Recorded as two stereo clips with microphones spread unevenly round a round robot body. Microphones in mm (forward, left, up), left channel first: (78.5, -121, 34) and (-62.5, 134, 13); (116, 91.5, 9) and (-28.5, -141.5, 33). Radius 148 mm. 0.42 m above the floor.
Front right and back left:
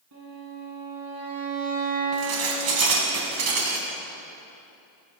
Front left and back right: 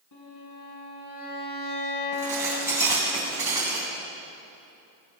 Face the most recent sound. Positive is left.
turn(degrees=155)